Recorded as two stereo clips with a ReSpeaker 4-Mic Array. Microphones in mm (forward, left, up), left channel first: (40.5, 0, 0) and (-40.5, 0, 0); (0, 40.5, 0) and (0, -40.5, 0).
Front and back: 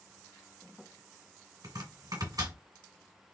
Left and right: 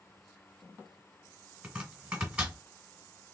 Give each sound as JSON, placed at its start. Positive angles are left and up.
{"t": 1.6, "sound": "chopping", "azimuth_deg": -165, "distance_m": 1.8}